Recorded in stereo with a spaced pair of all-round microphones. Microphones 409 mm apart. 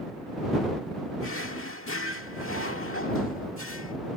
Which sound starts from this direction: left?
A drawer, at 1.2 s.